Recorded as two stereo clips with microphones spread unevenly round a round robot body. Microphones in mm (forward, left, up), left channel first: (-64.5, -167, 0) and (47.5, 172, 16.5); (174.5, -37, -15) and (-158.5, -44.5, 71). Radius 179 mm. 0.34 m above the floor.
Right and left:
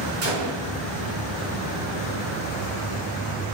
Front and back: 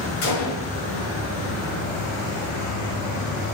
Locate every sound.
0.2 s a gunshot: 25° left, 4.5 m